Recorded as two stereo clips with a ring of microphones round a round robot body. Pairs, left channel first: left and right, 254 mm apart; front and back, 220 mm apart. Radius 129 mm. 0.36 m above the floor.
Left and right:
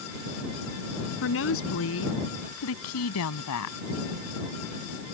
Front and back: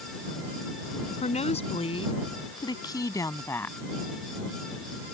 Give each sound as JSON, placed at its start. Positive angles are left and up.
{"t": 1.2, "sound": "a woman speaking", "azimuth_deg": 55}